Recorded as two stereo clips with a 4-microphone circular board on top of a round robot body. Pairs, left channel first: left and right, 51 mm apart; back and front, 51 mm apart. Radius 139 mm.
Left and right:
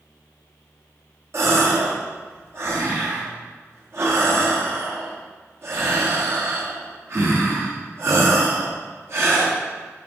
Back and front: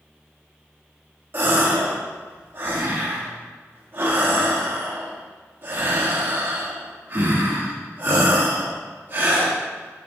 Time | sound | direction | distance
1.3 | a gasp | 55° right | 1.5 m